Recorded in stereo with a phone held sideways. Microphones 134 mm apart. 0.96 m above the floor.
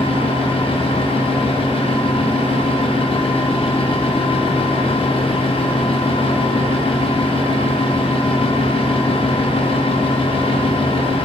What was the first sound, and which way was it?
A fan, 40° left (ahead or behind).